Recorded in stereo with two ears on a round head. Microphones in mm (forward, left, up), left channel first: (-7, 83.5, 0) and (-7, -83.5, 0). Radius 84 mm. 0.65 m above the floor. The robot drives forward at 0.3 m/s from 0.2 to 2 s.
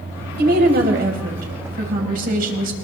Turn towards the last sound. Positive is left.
turn(degrees=-50)  # may be behind; listen again after turning